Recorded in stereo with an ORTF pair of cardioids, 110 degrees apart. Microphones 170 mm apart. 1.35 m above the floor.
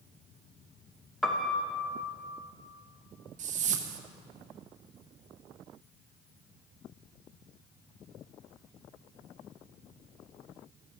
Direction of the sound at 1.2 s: 5° left.